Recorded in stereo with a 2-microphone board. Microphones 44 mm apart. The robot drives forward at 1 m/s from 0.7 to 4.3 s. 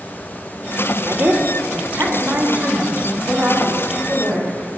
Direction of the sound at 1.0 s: 50° right (ahead or behind).